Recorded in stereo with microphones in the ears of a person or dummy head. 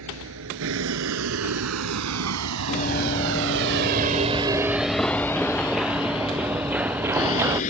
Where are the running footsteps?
40° left (ahead or behind); by 7.6 s 15° right (ahead or behind).